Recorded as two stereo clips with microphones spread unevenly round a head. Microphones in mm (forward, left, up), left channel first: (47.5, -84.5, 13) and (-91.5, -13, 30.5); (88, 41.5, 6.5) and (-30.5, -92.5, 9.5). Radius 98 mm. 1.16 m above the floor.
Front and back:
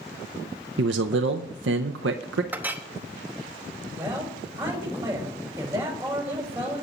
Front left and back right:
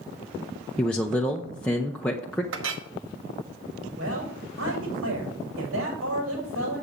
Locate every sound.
0.8 s a man speaking: 135° left, 0.5 m
2.5 s a clink: 130° right, 1.1 m
4.0 s a man speaking: 135° right, 5.5 m